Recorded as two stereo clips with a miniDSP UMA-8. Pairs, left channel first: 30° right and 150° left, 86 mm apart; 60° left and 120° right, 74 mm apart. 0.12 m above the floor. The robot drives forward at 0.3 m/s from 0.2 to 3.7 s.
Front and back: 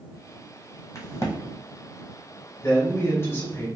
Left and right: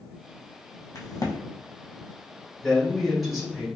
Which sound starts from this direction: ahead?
A crack, at 0.9 s.